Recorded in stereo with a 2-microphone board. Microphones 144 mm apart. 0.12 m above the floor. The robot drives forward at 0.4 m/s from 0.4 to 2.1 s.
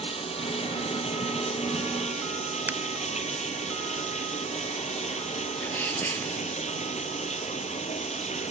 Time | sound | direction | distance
0.0 | running water | 45° left (ahead or behind) | 3 m
2.7 | a finger snap | 15° right (ahead or behind) | 0.9 m
5.6 | a sneeze | 15° left (ahead or behind) | 2.5 m